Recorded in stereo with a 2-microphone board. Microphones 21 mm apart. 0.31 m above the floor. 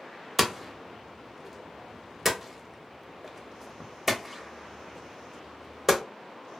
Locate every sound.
0.4 s hammering: 5° right (ahead or behind), 0.5 m